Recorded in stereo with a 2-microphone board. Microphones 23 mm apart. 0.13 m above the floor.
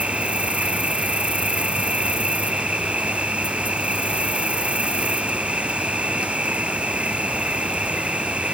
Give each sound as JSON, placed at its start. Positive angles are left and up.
{"t": 0.0, "sound": "an insect", "side_deg": -70}